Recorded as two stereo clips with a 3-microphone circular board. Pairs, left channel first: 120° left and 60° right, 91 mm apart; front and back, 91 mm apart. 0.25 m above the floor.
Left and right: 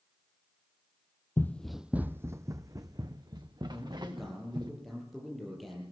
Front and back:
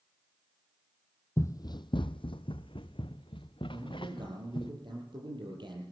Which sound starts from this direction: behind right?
A man speaking, at 3.7 s.